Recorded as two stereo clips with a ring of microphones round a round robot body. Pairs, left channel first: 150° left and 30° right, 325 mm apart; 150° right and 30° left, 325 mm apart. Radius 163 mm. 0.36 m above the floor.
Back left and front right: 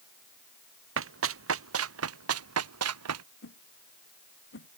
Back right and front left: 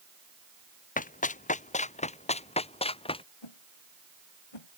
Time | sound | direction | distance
1.0 | running footsteps | 85° right | ?
3.4 | a whoosh | 155° right | ?